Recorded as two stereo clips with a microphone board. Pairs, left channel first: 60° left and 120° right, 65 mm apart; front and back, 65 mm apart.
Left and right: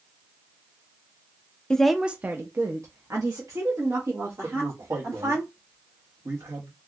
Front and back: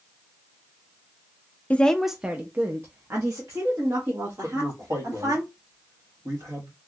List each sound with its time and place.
1.7 s a woman speaking: 5° left, 0.5 m; by 5.4 s 145° right, 2.5 m
4.4 s a man speaking: 155° right, 2 m